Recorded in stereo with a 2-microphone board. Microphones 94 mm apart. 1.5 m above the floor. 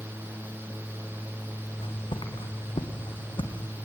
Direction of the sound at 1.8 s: 65° left (ahead or behind).